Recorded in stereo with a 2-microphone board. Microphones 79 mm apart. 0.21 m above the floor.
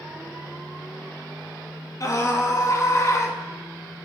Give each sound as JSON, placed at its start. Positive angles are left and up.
{"t": 2.0, "sound": "a scream", "side_deg": 45, "distance_m": 2.5}